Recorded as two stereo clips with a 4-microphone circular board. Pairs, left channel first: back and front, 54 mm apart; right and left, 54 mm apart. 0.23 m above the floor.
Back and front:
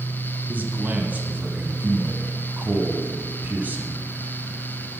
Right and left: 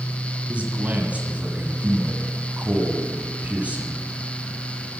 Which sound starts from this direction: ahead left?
A man speaking, at 0.5 s.